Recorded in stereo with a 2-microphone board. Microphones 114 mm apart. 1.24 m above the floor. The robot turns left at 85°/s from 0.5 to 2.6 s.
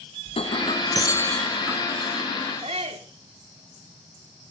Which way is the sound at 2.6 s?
65° right (ahead or behind).